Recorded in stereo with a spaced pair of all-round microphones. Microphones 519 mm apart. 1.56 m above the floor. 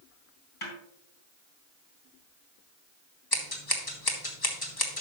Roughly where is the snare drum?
Left.